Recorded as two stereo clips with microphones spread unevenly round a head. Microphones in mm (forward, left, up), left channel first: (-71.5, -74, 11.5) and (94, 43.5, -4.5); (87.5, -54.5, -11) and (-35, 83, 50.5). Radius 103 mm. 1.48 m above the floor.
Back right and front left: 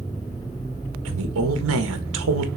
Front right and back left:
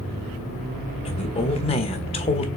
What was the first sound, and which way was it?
A woman speaking, 15° left.